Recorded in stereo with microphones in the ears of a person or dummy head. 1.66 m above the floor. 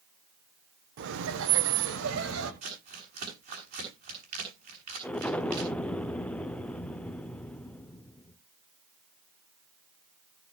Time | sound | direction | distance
1.0 | laughter | 65° right (ahead or behind) | 1.1 m
2.6 | crumpling | 55° right (ahead or behind) | 7 m
5.0 | an explosion | centre (ahead or behind) | 0.7 m